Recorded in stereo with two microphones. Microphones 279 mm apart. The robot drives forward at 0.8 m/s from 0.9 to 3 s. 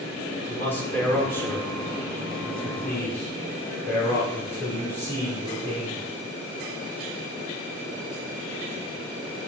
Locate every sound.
0.5 s a man speaking: 5° left (ahead or behind), 1.6 m; by 6.1 s 10° left (ahead or behind), 1.5 m